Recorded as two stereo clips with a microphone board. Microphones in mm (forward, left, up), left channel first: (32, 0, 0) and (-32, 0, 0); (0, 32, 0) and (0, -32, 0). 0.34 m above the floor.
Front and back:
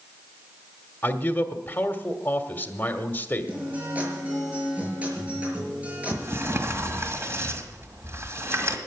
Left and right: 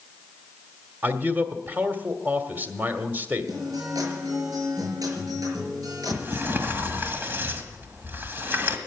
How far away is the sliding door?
About 1.8 m.